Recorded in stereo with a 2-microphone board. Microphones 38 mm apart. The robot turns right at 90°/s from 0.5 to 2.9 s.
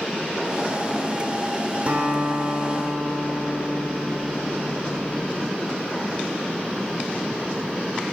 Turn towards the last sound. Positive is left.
turn(degrees=-45)